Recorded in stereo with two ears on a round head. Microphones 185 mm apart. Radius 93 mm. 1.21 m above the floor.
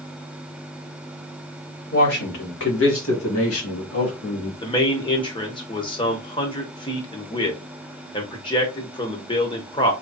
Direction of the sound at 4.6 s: 25° left (ahead or behind).